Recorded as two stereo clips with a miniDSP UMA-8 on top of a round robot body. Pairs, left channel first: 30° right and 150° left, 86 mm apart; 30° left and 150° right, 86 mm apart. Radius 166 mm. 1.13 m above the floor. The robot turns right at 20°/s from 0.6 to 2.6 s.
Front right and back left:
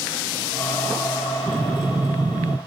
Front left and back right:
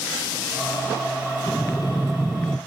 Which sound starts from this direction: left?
Breathing, at 1.5 s.